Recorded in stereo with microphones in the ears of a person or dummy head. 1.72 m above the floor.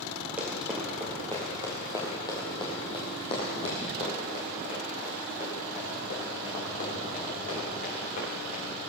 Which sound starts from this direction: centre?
Running footsteps, at 0.4 s.